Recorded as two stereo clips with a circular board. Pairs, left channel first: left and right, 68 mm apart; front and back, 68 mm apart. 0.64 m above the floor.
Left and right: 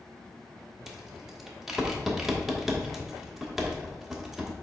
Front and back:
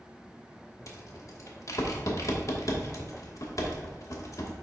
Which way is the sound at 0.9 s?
5° right.